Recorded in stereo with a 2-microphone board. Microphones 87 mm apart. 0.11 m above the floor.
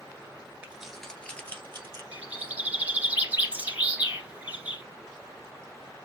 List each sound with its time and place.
0.6 s keys jangling: 15° right (ahead or behind), 1.1 m; by 2.0 s 30° left (ahead or behind), 2 m
2.1 s a bird: 20° right (ahead or behind), 1.7 m